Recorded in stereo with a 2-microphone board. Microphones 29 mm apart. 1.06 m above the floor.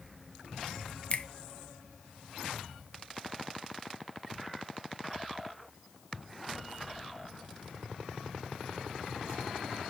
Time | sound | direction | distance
1.1 | a finger snap | 40° left (ahead or behind) | 0.9 m